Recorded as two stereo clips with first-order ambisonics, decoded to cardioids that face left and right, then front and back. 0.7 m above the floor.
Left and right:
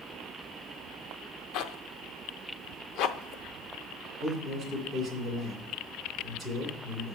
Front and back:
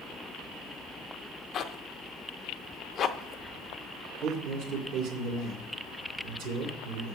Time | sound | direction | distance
1.5 | a zipper | 55° left | 0.5 m
4.2 | a man speaking | 160° left | 2.5 m